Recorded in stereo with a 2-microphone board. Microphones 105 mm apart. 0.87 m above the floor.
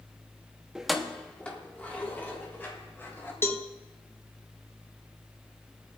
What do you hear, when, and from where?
0.8 s keys jangling: 5° right (ahead or behind), 0.7 m; by 3.3 s 20° left (ahead or behind), 3.5 m
3.4 s a cowbell: 20° left (ahead or behind), 0.7 m